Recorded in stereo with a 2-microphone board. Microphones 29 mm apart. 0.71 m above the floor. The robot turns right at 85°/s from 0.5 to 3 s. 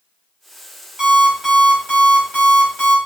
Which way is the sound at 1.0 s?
15° right.